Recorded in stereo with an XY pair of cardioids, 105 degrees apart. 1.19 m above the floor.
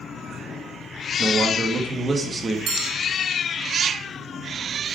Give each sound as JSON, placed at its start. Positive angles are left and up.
{"t": 1.2, "sound": "a man speaking", "azimuth_deg": -30, "distance_m": 2.0}
{"t": 2.7, "sound": "a bell", "azimuth_deg": -65, "distance_m": 1.2}